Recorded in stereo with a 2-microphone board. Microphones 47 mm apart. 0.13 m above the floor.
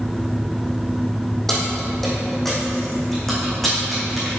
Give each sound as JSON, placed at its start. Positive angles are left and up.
{"t": 1.5, "sound": "keys jangling", "side_deg": 5, "distance_m": 3.5}